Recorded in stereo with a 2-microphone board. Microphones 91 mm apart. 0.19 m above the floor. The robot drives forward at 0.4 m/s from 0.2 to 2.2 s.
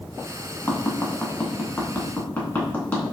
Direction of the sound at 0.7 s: 30° left (ahead or behind).